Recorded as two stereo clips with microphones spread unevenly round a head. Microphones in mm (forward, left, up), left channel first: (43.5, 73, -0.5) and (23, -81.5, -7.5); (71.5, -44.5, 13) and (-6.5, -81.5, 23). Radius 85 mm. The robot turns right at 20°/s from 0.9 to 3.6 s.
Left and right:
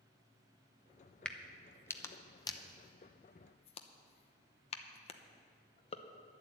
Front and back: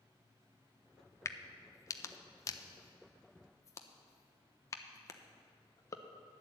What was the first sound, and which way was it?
A crack, straight ahead.